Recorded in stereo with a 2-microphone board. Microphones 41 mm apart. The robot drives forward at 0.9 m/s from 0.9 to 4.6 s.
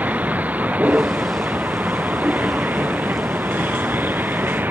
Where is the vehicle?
40° right (ahead or behind); by 4.7 s 50° right (ahead or behind).